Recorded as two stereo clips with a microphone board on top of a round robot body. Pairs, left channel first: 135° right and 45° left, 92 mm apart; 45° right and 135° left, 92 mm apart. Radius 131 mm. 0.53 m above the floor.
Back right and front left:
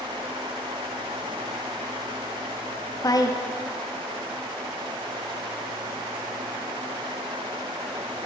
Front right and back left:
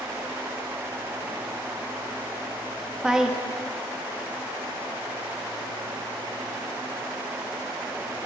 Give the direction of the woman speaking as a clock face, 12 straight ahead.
5 o'clock.